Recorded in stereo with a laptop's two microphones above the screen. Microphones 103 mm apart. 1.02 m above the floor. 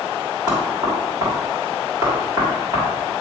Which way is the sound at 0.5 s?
35° right (ahead or behind).